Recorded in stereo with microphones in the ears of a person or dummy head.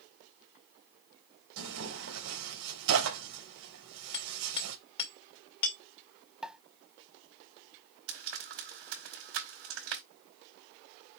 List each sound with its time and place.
1.6 s tearing paper: 75° right (ahead or behind), 3.5 m
4.1 s hammering: 30° left (ahead or behind), 2 m
6.4 s a pop: 5° right (ahead or behind), 0.6 m
8.1 s frying: 75° right (ahead or behind), 5 m